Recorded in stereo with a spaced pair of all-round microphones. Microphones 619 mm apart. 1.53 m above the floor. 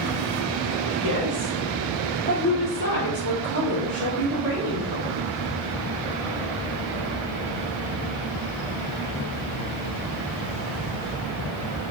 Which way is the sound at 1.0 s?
35° right (ahead or behind).